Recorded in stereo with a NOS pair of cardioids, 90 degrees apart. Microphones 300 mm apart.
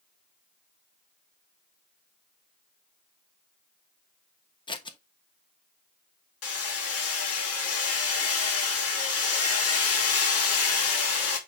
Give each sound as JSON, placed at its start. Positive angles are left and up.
{"t": 4.7, "sound": "scissors", "azimuth_deg": 15, "distance_m": 1.3}
{"t": 6.4, "sound": "hammering", "azimuth_deg": 50, "distance_m": 3.0}